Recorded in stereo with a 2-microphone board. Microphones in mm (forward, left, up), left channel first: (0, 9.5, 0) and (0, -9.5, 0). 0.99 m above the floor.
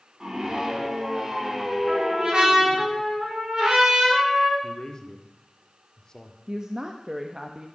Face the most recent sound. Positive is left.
turn(degrees=-35)  # may be behind; listen again after turning